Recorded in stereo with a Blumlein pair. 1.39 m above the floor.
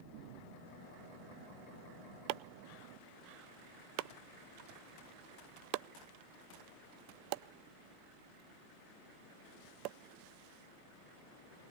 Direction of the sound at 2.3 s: 40° right.